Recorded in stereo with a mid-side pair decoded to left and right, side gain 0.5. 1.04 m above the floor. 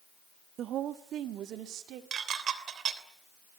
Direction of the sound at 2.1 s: 55° right.